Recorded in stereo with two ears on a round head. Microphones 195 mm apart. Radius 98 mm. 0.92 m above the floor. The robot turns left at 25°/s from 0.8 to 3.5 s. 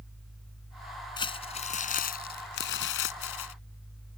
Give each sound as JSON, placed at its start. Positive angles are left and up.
{"t": 1.2, "sound": "crumpling", "azimuth_deg": 155}